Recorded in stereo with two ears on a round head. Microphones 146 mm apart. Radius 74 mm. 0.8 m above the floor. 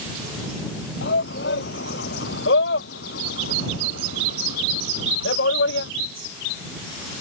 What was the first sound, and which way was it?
A shout, 70° left (ahead or behind).